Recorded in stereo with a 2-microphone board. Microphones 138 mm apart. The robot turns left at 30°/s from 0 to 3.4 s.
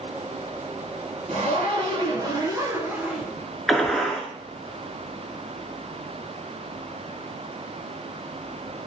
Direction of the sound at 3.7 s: 5° left (ahead or behind).